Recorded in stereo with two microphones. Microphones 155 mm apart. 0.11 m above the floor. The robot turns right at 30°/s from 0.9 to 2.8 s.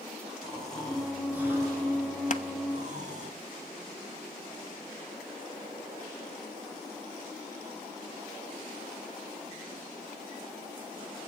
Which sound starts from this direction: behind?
Snoring, at 0.4 s.